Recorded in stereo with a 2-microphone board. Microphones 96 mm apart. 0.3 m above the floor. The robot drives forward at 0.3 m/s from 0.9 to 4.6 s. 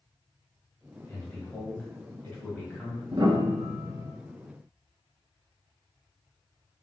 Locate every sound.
1.1 s a man speaking: 25° left (ahead or behind), 1.4 m; by 3.0 s 20° left (ahead or behind), 1.7 m
3.1 s a piano: 50° right (ahead or behind), 0.7 m; by 4.1 s 40° right (ahead or behind), 0.9 m